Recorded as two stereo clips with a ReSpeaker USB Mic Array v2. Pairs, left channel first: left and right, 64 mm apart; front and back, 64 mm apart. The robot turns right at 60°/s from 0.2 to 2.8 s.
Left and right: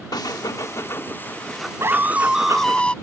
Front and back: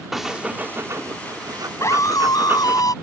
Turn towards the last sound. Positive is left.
turn(degrees=15)